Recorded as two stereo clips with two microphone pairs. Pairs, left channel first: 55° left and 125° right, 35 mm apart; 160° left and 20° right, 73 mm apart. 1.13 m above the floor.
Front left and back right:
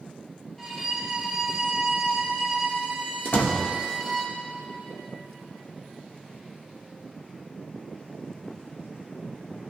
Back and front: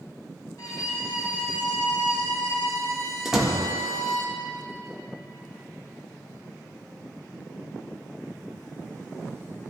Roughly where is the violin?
Behind left.